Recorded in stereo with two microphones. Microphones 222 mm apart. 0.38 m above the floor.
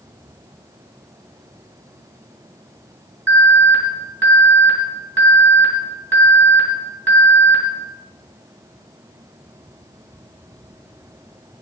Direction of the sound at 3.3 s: 60° right (ahead or behind).